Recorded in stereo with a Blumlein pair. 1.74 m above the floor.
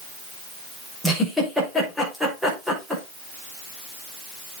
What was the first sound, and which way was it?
A giggle, straight ahead.